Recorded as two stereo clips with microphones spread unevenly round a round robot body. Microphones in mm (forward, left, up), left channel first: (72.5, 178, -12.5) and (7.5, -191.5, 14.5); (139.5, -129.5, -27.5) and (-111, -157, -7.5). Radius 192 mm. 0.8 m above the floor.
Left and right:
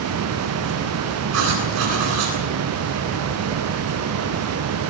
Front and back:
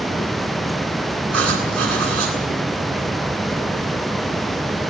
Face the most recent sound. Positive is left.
turn(degrees=-155)